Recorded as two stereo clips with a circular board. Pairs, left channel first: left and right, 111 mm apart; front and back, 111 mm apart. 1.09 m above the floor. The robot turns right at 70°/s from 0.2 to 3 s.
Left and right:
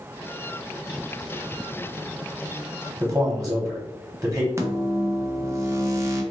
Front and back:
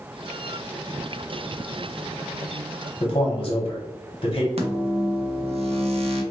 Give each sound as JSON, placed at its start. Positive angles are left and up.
{"t": 3.0, "sound": "a man speaking", "azimuth_deg": -20, "distance_m": 1.0}
{"t": 4.6, "sound": "a microwave", "azimuth_deg": -155, "distance_m": 0.6}